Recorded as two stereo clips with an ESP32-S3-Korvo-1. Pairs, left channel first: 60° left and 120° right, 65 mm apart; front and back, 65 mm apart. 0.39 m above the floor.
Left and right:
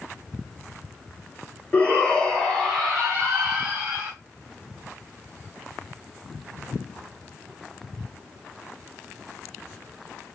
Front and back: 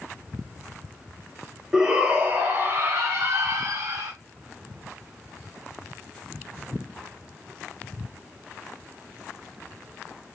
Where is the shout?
110° left, 1.0 m; by 4.1 s 175° right, 2.5 m.